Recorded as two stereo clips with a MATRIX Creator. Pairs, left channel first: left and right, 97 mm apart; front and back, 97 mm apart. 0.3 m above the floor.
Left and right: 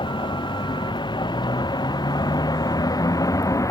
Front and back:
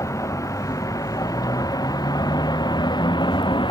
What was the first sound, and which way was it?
A vehicle, 55° left.